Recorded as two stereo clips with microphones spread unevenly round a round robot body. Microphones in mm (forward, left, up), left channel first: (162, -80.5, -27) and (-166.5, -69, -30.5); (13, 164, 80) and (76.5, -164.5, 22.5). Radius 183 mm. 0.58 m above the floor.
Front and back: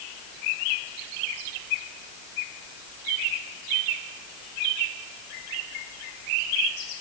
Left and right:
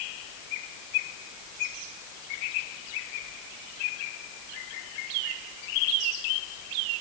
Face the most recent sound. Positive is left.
No sound to turn to.